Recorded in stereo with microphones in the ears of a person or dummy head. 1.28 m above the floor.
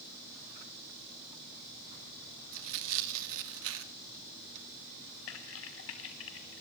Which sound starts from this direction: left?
Typing on a keyboard, at 5.3 s.